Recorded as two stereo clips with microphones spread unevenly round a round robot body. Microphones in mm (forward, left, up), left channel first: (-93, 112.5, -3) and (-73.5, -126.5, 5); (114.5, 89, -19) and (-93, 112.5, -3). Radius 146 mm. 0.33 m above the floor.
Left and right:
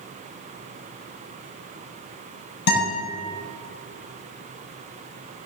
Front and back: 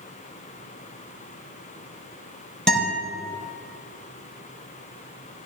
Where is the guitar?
80° left, 4.5 m.